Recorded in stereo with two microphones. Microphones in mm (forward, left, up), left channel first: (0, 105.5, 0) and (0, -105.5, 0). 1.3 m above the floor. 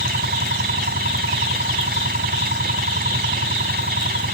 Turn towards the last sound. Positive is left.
turn(degrees=-50)  # may be behind; listen again after turning